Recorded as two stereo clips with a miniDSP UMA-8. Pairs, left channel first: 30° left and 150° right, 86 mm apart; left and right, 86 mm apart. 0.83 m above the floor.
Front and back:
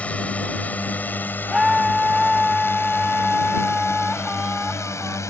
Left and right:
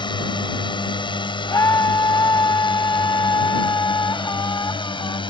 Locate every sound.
0.0 s a drone: 105° left; by 5.3 s 85° left
1.5 s a scream: 125° left